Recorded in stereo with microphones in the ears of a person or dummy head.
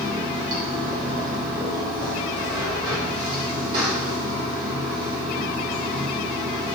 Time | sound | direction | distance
0.0 | running water | 60° right (ahead or behind) | 2 m